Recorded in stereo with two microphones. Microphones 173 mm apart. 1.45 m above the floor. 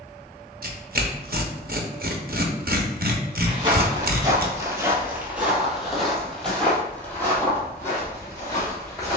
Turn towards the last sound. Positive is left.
turn(degrees=20)  # may be behind; listen again after turning